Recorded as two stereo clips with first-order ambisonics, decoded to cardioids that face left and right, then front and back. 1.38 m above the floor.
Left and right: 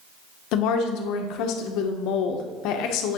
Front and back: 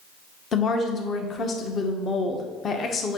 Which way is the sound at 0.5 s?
65° left.